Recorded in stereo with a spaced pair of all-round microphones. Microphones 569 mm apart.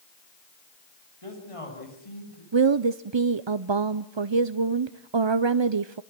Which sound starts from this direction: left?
A man speaking, at 1.2 s.